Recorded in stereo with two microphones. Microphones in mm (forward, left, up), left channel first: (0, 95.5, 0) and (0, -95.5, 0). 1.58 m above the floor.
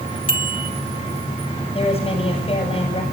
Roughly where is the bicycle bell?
Left.